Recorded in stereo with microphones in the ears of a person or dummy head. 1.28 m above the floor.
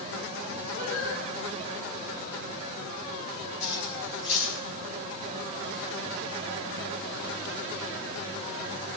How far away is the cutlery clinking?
About 6 m.